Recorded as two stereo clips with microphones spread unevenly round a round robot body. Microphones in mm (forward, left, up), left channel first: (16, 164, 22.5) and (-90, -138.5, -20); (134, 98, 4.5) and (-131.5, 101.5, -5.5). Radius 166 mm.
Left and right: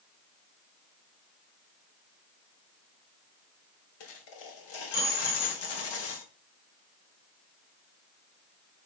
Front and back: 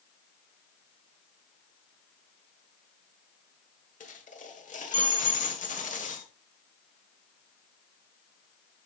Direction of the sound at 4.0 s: 60° left.